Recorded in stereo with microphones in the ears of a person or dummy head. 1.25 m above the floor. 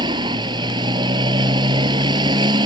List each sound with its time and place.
0.0 s a motorcycle: 20° right (ahead or behind)